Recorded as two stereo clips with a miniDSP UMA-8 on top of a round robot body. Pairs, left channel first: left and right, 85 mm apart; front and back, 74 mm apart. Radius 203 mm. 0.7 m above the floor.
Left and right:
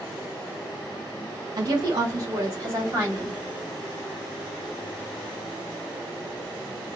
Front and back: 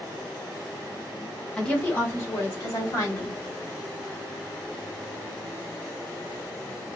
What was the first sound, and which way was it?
A woman speaking, 75° right.